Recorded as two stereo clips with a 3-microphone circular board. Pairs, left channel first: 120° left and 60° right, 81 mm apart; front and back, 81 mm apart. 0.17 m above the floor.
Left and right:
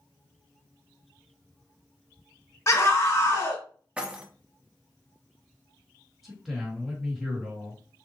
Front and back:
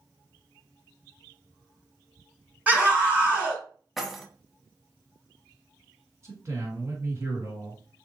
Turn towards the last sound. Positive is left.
turn(degrees=-145)